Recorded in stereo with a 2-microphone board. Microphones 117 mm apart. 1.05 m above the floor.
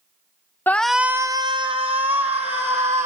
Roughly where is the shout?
Centre.